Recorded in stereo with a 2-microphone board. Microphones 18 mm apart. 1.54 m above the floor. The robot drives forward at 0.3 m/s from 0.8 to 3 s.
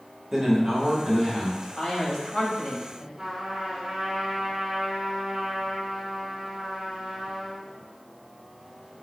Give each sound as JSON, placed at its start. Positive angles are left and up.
{"t": 0.3, "sound": "a man speaking", "side_deg": -20, "distance_m": 1.8}
{"t": 1.8, "sound": "a man speaking", "side_deg": 55, "distance_m": 2.0}
{"t": 3.2, "sound": "a trumpet", "side_deg": -25, "distance_m": 3.0}